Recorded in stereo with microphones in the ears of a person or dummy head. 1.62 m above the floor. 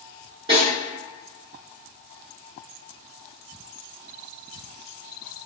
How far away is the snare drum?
About 1.7 m.